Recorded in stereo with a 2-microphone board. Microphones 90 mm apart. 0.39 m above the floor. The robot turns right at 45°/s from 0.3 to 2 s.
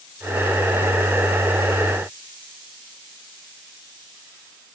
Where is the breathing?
I don't hear breathing.